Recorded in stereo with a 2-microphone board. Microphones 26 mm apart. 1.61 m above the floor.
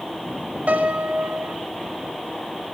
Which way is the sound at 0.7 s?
80° right.